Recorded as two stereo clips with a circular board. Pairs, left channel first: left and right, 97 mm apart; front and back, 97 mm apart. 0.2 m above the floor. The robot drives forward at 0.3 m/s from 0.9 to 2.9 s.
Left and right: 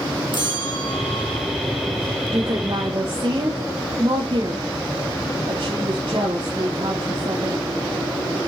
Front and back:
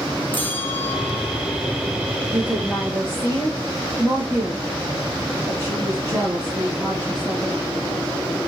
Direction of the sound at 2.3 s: 120° right.